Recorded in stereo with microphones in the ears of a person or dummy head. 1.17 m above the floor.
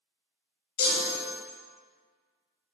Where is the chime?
55° left (ahead or behind), 0.7 m.